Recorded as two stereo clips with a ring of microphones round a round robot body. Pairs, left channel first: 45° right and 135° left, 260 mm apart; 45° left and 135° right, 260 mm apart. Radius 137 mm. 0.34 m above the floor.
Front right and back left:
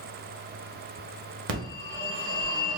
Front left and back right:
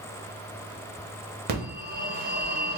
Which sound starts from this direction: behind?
A phone ringing, at 1.5 s.